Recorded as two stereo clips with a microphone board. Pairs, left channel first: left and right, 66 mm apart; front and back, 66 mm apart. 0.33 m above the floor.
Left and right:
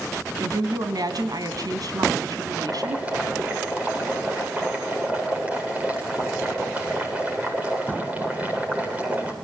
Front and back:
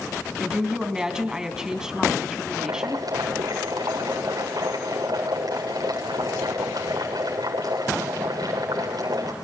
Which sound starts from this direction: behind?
Boiling, at 2.5 s.